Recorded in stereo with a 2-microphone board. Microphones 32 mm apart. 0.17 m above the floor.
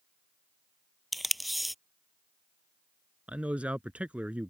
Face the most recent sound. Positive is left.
turn(degrees=-45)  # may be behind; listen again after turning